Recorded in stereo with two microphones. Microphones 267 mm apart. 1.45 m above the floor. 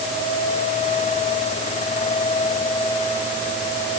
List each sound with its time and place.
Only background noise.